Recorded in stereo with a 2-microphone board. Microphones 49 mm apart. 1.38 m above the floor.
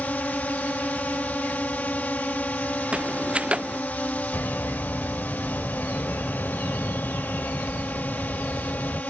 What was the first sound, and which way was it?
A drone, 30° left (ahead or behind).